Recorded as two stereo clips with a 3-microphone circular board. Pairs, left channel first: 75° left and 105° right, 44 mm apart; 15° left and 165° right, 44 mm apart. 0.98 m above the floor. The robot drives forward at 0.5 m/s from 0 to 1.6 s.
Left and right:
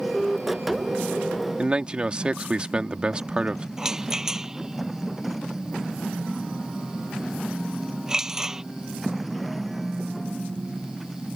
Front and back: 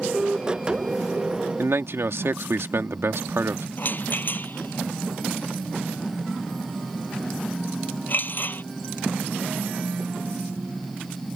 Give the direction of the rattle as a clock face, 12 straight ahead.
1 o'clock.